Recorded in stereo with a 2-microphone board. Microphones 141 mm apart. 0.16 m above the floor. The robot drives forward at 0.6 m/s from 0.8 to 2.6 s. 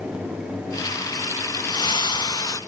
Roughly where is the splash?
Left.